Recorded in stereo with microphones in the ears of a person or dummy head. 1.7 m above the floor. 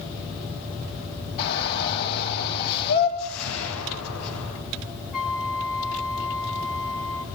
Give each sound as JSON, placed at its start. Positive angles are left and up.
{"t": 1.4, "sound": "a shout", "side_deg": 60, "distance_m": 9.0}
{"t": 3.2, "sound": "a whoosh", "side_deg": 85, "distance_m": 10.0}
{"t": 5.1, "sound": "a flute", "side_deg": 0, "distance_m": 2.0}